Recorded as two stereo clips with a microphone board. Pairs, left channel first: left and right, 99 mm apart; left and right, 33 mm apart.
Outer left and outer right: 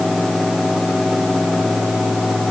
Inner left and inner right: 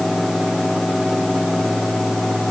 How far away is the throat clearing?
I don't hear throat clearing.